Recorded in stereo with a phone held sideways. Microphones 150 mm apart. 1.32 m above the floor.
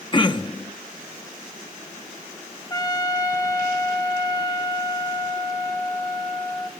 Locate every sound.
0.1 s throat clearing: 30° left (ahead or behind), 0.9 m
2.7 s a trumpet: 25° left (ahead or behind), 1.2 m